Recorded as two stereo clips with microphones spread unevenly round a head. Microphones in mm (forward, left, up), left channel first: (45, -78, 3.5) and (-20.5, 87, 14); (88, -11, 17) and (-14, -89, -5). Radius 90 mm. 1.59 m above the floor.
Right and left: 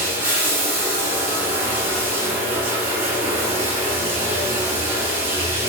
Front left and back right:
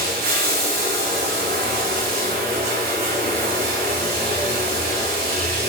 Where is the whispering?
No whispering in this recording.